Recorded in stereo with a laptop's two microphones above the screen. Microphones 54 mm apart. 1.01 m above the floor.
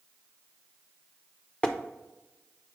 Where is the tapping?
20° left (ahead or behind), 0.8 m.